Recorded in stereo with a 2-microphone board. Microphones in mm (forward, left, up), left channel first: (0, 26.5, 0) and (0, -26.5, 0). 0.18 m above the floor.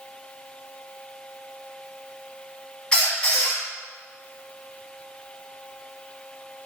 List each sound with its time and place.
2.9 s a squeak: 15° left (ahead or behind), 0.8 m